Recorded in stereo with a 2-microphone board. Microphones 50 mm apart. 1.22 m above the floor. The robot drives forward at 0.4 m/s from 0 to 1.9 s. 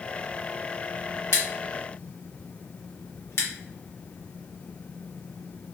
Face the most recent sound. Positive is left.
turn(degrees=60)  # may be behind; listen again after turning